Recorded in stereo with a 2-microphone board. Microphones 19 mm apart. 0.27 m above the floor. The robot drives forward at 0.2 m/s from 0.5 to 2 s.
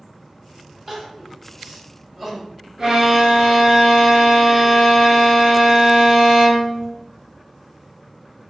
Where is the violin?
20° right (ahead or behind), 1.1 m.